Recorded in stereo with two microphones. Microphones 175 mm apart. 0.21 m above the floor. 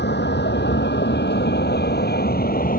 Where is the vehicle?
80° left; by 2.8 s 55° left (ahead or behind).